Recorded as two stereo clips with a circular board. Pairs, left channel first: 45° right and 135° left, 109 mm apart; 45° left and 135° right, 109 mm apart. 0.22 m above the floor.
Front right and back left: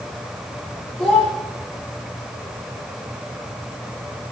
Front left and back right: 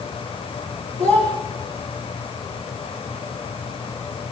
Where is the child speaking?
130° right, 9 m.